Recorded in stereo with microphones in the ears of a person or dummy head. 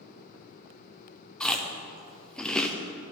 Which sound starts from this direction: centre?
Chewing, at 1.4 s.